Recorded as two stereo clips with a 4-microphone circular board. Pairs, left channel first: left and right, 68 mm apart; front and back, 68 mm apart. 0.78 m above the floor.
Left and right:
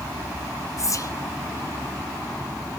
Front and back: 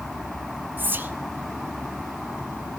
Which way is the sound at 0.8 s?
120° left.